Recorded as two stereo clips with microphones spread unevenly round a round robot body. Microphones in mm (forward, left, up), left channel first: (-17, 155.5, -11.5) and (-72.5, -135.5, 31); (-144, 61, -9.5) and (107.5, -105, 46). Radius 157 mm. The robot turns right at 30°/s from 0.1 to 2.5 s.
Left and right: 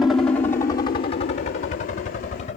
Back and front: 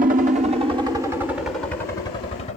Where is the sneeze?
No sneeze in this recording.